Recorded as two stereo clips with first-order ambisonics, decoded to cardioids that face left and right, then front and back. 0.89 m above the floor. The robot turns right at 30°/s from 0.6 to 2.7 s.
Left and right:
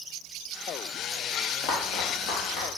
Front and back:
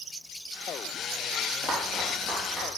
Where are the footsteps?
65° left, 1.7 m; by 2.7 s 100° left, 2.5 m.